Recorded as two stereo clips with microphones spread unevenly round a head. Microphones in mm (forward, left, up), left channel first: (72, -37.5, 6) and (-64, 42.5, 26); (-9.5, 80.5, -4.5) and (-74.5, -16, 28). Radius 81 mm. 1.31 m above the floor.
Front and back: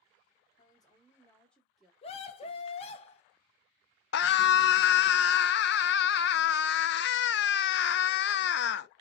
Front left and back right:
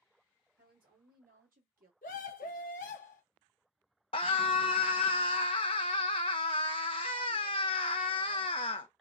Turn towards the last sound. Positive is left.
turn(degrees=-5)